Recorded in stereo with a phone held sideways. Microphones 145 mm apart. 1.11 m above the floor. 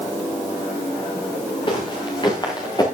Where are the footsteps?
35° left (ahead or behind), 7 m; by 2.9 s 30° left (ahead or behind), 5.5 m.